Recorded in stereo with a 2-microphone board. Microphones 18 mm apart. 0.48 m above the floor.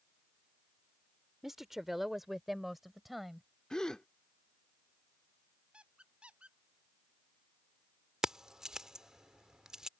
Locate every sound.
1.4 s a woman speaking: 20° right (ahead or behind); by 3.5 s 5° right (ahead or behind)
3.7 s a gasp: 35° left (ahead or behind)
5.7 s a squeak: 80° right
8.2 s keys jangling: 35° right (ahead or behind)